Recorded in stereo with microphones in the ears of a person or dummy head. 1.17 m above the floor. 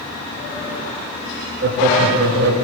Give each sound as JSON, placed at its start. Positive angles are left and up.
{"t": 1.6, "sound": "laughter", "side_deg": -65, "distance_m": 2.5}